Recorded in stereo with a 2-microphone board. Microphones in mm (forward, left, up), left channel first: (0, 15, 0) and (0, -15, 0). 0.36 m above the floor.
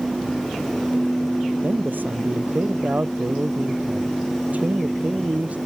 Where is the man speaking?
75° right (ahead or behind); by 5.6 s 50° right (ahead or behind).